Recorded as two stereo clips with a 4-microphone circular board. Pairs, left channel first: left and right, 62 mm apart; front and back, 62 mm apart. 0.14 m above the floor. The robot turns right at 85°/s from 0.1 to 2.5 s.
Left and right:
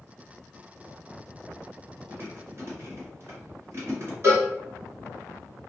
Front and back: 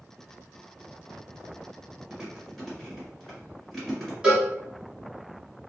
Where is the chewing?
120° right, 1.6 m; by 4.1 s 85° right, 1.6 m.